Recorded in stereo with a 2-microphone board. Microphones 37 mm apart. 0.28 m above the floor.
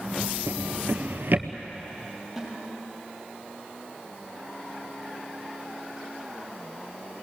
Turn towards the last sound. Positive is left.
turn(degrees=0)  # may be behind; listen again after turning